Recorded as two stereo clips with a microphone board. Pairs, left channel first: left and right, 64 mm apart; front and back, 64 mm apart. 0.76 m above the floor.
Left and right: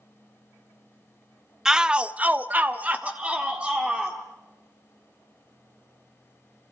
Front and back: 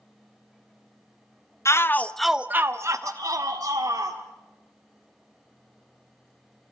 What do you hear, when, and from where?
1.6 s a shout: 10° right, 0.7 m; by 4.2 s 165° right, 1.7 m